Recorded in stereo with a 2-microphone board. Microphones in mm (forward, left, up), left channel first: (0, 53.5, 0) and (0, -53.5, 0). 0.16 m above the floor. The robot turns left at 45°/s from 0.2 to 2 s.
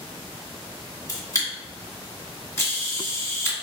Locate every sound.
1.1 s a camera shutter: 30° left (ahead or behind), 1.8 m; by 3.5 s 25° left (ahead or behind), 1.8 m